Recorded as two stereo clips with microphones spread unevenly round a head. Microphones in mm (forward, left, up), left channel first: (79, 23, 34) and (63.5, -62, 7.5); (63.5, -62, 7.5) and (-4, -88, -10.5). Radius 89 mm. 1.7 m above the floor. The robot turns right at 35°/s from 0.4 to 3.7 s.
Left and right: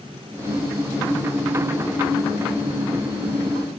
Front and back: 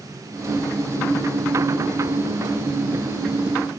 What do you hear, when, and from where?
Only background noise.